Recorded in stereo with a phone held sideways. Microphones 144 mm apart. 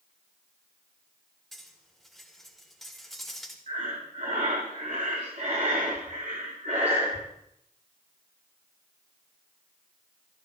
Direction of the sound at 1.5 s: Centre (ahead or behind).